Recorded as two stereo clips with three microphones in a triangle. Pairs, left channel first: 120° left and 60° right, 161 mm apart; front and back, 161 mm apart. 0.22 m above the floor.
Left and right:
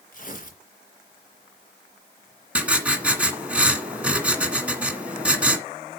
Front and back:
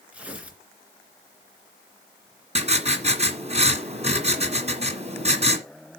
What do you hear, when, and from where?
0.1 s tearing paper: 100° left, 3 m
2.5 s writing: 140° right, 1.9 m